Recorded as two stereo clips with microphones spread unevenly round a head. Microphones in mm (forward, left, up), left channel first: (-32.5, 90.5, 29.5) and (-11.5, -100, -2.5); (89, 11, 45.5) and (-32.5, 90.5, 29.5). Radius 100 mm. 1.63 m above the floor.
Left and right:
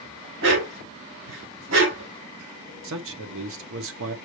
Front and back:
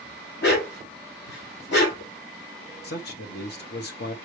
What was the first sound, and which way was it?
A dog barking, 50° right.